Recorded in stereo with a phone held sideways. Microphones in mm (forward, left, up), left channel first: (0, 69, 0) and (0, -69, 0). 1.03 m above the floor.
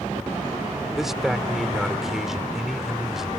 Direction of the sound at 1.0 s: 5° right (ahead or behind).